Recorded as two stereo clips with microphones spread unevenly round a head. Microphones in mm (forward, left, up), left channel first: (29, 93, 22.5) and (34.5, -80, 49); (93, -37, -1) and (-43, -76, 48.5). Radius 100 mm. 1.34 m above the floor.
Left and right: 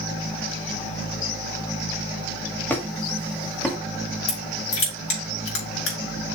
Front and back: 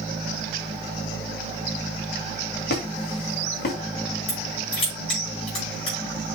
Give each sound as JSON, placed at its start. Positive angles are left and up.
{"t": 2.7, "sound": "a squeak", "azimuth_deg": 10, "distance_m": 2.0}
{"t": 4.3, "sound": "crushing", "azimuth_deg": 85, "distance_m": 4.5}